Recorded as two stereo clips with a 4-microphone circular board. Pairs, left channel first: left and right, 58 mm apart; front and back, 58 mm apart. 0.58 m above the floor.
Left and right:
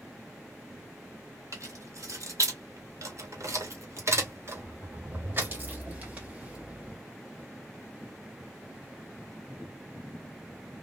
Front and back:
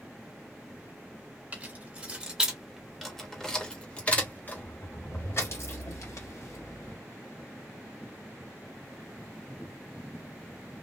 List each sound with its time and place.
1.5 s keys jangling: 115° right, 1.7 m; by 7.0 s 20° right, 2.5 m